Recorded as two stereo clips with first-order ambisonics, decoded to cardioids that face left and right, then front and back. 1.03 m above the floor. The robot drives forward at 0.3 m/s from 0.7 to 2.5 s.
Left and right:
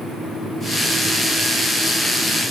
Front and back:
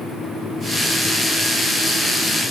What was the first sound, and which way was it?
Only background noise.